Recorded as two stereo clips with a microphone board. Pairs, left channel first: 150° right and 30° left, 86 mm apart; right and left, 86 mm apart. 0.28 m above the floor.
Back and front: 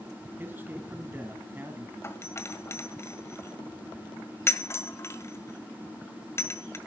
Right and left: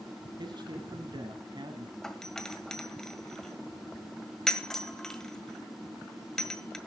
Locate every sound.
0.4 s a man speaking: 95° left, 1.9 m
2.0 s a doorbell: 170° right, 1.5 m